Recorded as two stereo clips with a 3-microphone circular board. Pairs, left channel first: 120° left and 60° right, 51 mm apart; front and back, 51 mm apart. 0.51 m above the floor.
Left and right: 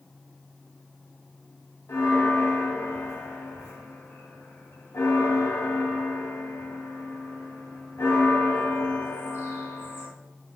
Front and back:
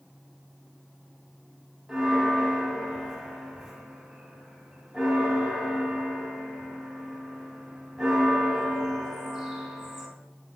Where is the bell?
100° left, 0.8 m.